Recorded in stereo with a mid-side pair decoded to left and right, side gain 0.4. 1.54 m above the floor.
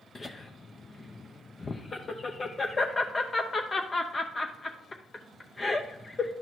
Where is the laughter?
40° left, 0.7 m.